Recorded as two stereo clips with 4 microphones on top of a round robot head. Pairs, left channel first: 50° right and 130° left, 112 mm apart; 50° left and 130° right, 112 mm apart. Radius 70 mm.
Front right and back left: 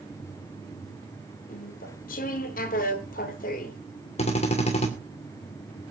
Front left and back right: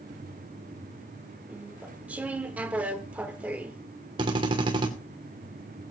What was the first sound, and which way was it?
Chewing, 55° right.